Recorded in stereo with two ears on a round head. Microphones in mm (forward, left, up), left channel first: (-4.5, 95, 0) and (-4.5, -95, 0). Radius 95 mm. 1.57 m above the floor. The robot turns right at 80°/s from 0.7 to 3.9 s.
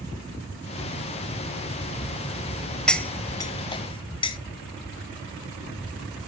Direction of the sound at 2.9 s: 5° left (ahead or behind).